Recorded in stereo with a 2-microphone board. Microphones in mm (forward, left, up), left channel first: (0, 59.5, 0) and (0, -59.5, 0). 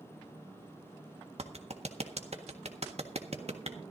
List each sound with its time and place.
1.4 s a clap: 65° right (ahead or behind), 1.5 m